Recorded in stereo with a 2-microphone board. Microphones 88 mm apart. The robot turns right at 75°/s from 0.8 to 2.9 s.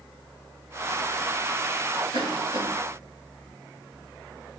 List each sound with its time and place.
2.1 s a cough: 85° right, 4 m; by 2.7 s 55° right (ahead or behind), 4 m